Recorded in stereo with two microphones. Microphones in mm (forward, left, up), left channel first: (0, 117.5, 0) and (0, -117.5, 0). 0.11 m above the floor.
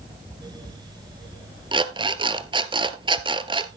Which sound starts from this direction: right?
An alarm clock, at 1.7 s.